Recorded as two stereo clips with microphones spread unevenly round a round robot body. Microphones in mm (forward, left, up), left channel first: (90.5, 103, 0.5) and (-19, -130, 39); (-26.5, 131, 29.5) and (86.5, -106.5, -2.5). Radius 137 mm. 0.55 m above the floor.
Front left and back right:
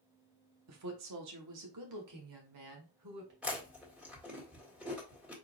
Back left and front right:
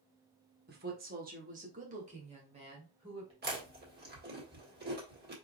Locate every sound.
0.7 s a woman speaking: 105° right, 1.2 m; by 3.3 s 135° right, 2 m
3.4 s chewing: 25° right, 1.8 m